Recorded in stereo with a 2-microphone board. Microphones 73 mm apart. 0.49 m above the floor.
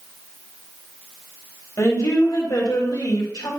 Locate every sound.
1.8 s a woman speaking: 50° left (ahead or behind), 3 m; by 3.5 s 65° left (ahead or behind), 3 m